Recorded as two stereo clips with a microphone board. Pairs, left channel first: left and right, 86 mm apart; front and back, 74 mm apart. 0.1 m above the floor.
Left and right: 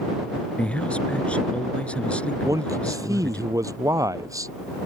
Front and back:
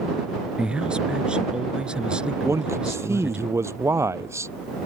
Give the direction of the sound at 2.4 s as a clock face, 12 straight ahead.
4 o'clock.